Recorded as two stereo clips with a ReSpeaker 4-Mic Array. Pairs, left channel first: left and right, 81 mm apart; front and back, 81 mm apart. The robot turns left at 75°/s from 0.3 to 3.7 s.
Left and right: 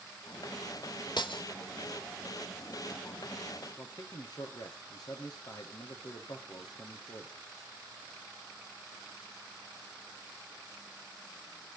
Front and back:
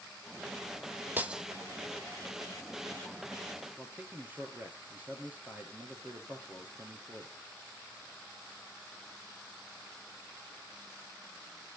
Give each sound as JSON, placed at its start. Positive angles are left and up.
{"t": 1.2, "sound": "breaking glass", "azimuth_deg": 115, "distance_m": 1.2}
{"t": 3.8, "sound": "a man speaking", "azimuth_deg": 115, "distance_m": 2.0}